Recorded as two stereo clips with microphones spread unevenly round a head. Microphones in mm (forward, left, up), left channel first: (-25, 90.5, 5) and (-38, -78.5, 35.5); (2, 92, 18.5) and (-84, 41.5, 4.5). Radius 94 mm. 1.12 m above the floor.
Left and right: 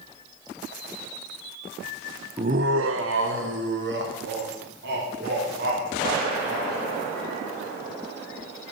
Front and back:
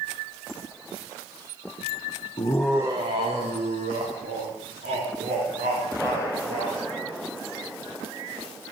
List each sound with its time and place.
2.4 s laughter: 20° right, 0.6 m; by 6.8 s 120° right, 6 m